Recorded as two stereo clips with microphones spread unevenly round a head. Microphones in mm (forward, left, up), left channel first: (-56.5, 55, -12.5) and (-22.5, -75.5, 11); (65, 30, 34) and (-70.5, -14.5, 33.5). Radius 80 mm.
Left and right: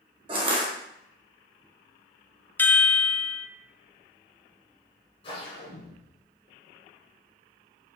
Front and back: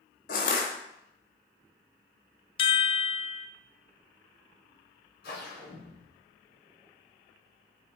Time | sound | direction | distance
0.3 | crushing | 20° right | 1.8 m
2.6 | a chime | 15° left | 0.8 m
5.2 | a whoosh | 40° left | 4.5 m